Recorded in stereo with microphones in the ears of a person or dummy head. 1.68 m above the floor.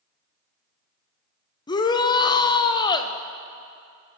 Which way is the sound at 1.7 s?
20° left (ahead or behind).